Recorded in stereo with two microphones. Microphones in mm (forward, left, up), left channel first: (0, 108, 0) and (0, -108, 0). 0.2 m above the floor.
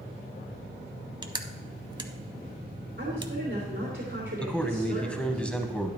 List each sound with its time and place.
1.2 s crushing: 20° right (ahead or behind), 0.7 m
3.0 s a woman speaking: 50° right (ahead or behind), 3.5 m
4.4 s a man speaking: 5° left (ahead or behind), 1.0 m